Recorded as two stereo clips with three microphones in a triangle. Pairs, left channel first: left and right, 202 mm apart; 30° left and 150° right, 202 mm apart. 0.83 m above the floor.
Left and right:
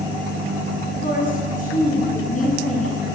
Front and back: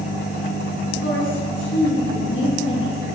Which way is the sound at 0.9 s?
40° left.